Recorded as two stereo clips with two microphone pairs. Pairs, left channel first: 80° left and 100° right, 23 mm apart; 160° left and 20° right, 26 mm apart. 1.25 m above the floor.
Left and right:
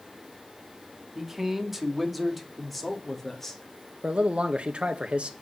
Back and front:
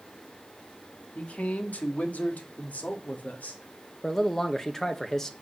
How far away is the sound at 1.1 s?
About 2.0 m.